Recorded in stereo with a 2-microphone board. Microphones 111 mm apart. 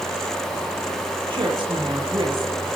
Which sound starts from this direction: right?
A woman speaking, at 1.3 s.